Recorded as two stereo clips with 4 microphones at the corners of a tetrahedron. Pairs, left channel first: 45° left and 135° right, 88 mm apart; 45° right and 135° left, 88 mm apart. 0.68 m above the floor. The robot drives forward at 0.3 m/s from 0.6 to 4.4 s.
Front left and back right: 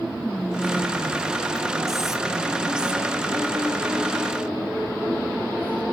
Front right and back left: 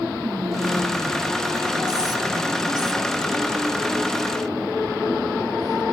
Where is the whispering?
125° left, 1.3 m; by 5.8 s 155° left, 2 m.